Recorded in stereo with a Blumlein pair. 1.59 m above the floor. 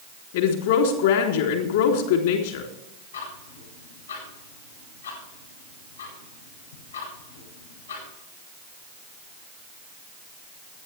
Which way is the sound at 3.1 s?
70° left.